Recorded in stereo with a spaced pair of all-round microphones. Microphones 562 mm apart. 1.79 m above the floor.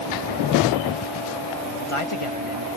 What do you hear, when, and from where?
1.6 s a man speaking: 60° left (ahead or behind)